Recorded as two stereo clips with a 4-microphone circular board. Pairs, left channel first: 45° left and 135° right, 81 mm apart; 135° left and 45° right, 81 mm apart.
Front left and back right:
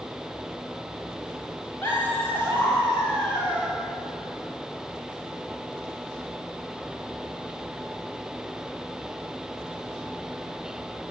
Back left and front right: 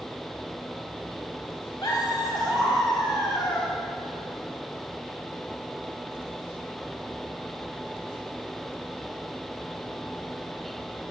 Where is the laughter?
105° left, 4 m.